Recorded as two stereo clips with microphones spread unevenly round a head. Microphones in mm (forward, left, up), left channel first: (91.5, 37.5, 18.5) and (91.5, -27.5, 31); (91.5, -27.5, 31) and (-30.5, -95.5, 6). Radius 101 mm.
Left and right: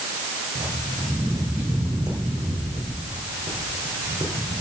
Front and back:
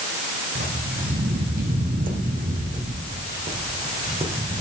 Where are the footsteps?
145° right, 2.5 m; by 4.6 s 100° right, 3 m.